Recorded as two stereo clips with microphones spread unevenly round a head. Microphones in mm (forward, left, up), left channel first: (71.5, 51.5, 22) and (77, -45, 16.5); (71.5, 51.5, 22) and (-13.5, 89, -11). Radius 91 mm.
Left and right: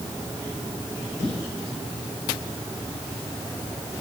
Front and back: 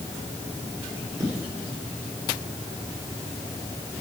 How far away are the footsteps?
About 5.5 m.